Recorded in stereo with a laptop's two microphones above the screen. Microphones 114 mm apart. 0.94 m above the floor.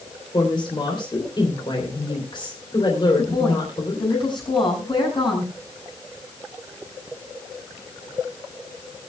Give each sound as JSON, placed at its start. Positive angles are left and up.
{"t": 0.3, "sound": "a woman speaking", "side_deg": 45, "distance_m": 3.0}
{"t": 3.2, "sound": "a woman speaking", "side_deg": 45, "distance_m": 6.5}